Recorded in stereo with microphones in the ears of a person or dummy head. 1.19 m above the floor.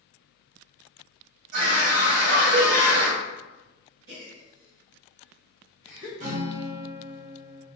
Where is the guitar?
45° right (ahead or behind), 1.3 m.